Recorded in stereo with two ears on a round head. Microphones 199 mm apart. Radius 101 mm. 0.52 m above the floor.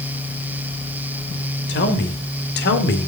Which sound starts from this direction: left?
A man speaking, at 1.7 s.